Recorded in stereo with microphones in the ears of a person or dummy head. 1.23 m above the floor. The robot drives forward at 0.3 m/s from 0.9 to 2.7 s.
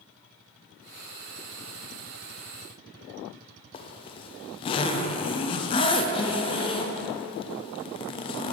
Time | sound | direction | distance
3.7 | a zipper | 25° left (ahead or behind) | 0.6 m